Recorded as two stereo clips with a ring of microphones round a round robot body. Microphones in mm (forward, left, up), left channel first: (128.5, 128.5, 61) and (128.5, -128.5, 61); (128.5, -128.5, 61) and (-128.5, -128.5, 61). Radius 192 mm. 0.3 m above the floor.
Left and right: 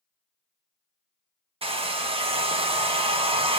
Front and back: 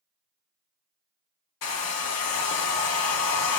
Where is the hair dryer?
20° right, 0.6 m.